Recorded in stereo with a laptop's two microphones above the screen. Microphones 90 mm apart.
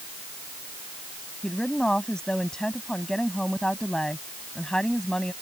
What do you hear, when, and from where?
1.4 s a woman speaking: 10° left (ahead or behind)